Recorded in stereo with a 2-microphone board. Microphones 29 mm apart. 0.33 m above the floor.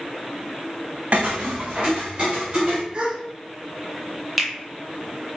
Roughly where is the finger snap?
Centre.